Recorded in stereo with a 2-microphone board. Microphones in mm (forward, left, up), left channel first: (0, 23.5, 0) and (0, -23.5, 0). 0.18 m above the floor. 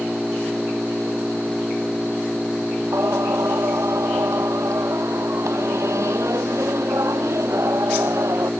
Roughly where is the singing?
Right.